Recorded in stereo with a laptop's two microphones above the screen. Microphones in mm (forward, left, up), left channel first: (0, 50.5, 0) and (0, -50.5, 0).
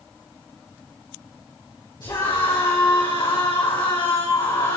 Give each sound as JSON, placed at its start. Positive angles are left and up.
{"t": 2.0, "sound": "a scream", "side_deg": 45, "distance_m": 5.0}